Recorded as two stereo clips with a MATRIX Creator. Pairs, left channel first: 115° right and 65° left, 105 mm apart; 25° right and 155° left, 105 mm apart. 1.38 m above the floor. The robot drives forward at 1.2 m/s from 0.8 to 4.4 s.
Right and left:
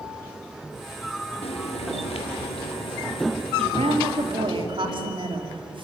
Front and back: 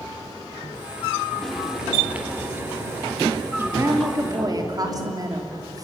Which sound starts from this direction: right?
Frying, at 1.4 s.